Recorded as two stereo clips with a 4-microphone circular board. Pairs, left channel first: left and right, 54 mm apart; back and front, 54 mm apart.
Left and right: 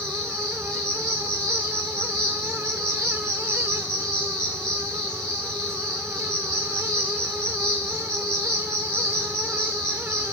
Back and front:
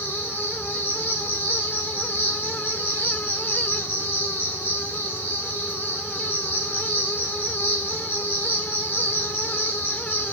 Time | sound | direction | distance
0.0 | an insect | 165° left | 2.5 m